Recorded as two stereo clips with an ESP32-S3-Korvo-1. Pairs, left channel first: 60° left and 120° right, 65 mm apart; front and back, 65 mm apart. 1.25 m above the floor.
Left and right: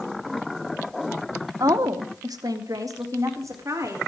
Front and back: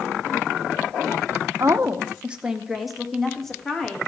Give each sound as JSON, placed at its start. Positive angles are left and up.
{"t": 1.6, "sound": "a woman speaking", "azimuth_deg": -140, "distance_m": 0.8}